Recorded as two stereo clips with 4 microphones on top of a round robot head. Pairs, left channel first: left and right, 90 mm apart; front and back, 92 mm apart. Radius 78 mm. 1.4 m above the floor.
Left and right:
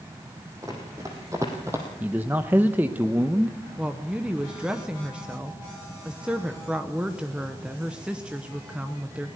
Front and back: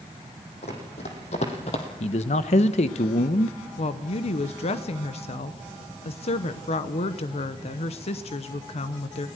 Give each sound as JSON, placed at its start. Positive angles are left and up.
{"t": 0.6, "sound": "running footsteps", "azimuth_deg": -25, "distance_m": 3.5}
{"t": 2.0, "sound": "a man speaking", "azimuth_deg": -10, "distance_m": 0.9}
{"t": 3.8, "sound": "a woman speaking", "azimuth_deg": -10, "distance_m": 0.9}